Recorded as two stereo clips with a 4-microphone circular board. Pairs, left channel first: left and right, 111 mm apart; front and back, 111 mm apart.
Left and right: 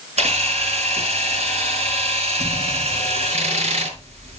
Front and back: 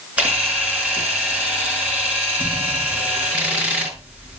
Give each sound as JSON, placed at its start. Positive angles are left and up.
{"t": 0.2, "sound": "a camera shutter", "azimuth_deg": -100, "distance_m": 5.5}